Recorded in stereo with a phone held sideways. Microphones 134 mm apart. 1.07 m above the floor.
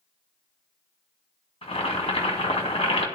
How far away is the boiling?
About 2.0 m.